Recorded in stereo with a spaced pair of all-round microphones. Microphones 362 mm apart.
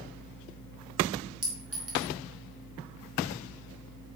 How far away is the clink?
About 2 m.